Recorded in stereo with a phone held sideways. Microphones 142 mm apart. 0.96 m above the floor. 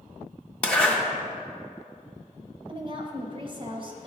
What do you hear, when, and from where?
0.6 s a zipper: 10° left (ahead or behind), 0.7 m
2.7 s a woman speaking: 35° right (ahead or behind), 0.7 m